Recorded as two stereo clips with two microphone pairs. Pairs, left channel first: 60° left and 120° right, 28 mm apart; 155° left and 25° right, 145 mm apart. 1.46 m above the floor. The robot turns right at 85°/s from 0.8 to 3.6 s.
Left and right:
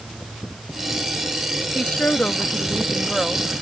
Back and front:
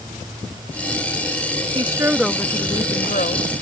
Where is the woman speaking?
25° left; by 3.5 s 170° left.